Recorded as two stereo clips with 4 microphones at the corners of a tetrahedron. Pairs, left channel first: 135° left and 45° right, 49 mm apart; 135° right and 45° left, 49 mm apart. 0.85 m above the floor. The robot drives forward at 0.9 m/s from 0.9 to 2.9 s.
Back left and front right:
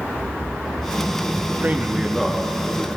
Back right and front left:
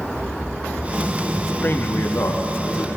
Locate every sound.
1.6 s a man speaking: 90° right, 0.6 m; by 3.0 s 155° right, 1.3 m